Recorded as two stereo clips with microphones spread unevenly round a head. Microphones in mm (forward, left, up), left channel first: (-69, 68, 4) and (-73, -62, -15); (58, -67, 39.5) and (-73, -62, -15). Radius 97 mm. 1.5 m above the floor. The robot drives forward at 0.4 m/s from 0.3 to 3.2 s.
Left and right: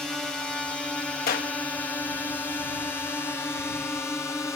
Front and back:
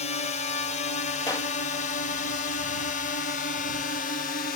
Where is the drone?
15° right; by 4.6 s 10° left.